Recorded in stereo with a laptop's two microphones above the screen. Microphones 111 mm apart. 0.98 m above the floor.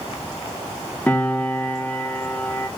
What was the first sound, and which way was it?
A piano, 10° left (ahead or behind).